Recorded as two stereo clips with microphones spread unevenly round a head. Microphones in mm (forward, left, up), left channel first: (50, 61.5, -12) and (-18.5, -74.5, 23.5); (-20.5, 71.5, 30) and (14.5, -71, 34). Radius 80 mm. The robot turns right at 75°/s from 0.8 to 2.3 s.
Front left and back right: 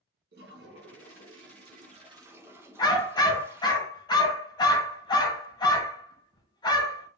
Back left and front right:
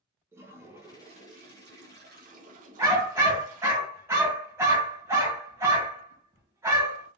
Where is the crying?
No crying in this recording.